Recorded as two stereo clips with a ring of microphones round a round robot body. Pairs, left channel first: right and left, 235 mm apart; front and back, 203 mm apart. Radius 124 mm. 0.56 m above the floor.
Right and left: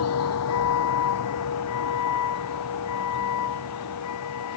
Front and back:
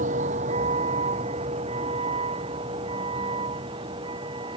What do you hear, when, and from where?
0.0 s a vehicle: 120° right; by 4.6 s 110° right